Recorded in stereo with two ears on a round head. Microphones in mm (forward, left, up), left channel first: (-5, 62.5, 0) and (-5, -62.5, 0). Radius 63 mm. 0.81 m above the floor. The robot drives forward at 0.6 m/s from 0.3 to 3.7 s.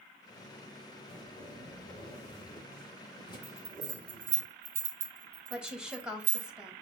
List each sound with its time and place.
1.1 s a zipper: 45° left (ahead or behind), 2.5 m; by 4.4 s 30° left (ahead or behind), 4 m
3.4 s a bell: 85° right, 1.0 m
5.5 s a woman speaking: 5° right (ahead or behind), 0.5 m